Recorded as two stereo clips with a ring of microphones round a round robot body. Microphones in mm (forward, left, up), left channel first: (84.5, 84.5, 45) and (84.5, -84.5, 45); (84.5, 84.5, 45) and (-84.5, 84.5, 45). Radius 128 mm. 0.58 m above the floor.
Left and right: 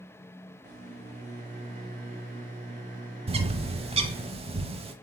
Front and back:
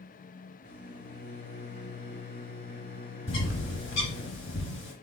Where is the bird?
35° right, 0.8 m.